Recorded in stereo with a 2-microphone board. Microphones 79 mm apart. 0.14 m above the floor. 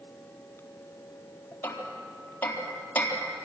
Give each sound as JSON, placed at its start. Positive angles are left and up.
{"t": 1.6, "sound": "hammering", "side_deg": 25, "distance_m": 4.0}